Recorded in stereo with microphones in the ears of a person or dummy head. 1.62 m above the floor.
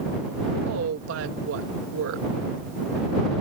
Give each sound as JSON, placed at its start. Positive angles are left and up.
{"t": 0.7, "sound": "a woman speaking", "side_deg": -75}